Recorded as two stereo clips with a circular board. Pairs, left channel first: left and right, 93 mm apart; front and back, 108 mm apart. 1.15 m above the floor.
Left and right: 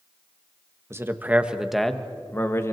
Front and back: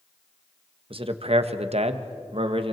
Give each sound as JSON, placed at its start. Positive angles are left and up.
{"t": 0.9, "sound": "a man speaking", "azimuth_deg": -150, "distance_m": 1.4}